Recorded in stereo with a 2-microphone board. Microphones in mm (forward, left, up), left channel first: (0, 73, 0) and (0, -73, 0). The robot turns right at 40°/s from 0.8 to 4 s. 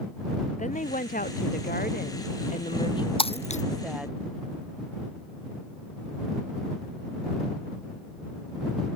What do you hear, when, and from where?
0.6 s a woman speaking: 60° left; by 4.2 s 175° right
3.2 s breaking glass: 40° left (ahead or behind); by 3.6 s 55° left (ahead or behind)